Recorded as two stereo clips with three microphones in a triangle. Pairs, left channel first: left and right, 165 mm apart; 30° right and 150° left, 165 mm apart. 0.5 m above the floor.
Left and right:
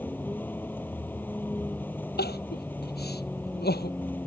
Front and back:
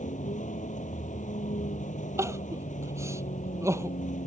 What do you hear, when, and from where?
0.0 s a vehicle: 10° left
2.2 s crying: 75° left